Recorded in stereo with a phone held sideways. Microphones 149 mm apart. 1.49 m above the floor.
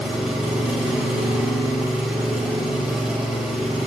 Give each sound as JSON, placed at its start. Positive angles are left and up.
{"t": 0.0, "sound": "an engine running", "side_deg": -5, "distance_m": 3.0}